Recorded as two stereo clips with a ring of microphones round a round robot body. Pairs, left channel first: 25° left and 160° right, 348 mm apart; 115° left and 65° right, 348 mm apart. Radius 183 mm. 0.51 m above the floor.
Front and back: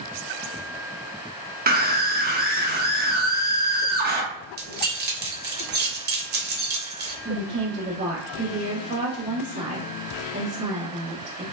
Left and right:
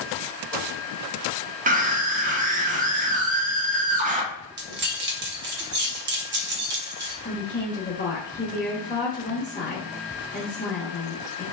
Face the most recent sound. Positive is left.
turn(degrees=155)